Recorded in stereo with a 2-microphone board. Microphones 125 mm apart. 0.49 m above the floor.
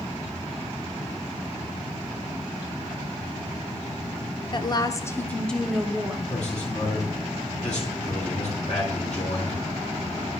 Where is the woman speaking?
40° left (ahead or behind), 1.0 m; by 6.2 s 10° right (ahead or behind), 1.2 m.